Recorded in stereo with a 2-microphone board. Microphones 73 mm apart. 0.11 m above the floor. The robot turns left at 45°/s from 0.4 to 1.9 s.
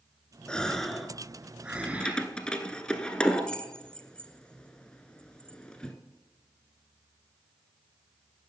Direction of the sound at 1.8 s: 15° left (ahead or behind).